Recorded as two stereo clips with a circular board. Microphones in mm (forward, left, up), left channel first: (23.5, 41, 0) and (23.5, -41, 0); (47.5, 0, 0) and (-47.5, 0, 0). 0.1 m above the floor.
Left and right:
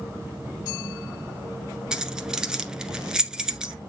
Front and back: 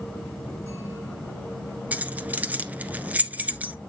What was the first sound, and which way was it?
Keys jangling, 155° right.